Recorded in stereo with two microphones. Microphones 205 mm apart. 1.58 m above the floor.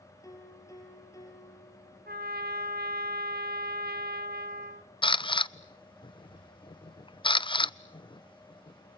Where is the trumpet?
50° right (ahead or behind), 1.5 m.